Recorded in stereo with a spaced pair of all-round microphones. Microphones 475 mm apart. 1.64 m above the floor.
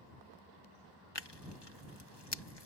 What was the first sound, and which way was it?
Tearing paper, 55° left (ahead or behind).